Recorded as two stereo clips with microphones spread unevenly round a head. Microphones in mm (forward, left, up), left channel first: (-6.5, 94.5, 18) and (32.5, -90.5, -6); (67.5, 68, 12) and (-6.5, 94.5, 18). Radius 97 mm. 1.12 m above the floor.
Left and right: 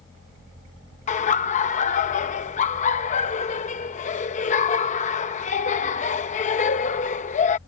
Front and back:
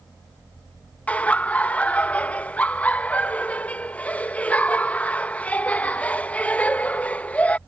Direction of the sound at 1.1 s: 50° left.